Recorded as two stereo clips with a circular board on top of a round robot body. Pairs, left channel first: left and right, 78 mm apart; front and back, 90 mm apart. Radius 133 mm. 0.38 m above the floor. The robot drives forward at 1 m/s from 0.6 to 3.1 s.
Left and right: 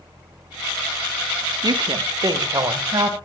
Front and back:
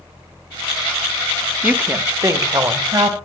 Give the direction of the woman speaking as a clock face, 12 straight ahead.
4 o'clock.